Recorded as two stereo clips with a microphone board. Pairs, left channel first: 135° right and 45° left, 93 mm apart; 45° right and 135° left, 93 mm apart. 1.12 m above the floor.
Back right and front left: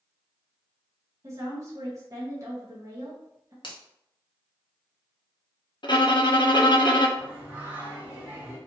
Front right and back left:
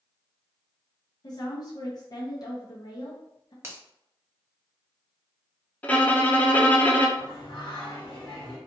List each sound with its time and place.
1.2 s a woman speaking: 5° right, 0.8 m
3.6 s a finger snap: 165° right, 0.8 m
5.8 s a violin: 115° right, 0.6 m
7.2 s singing: 25° right, 1.3 m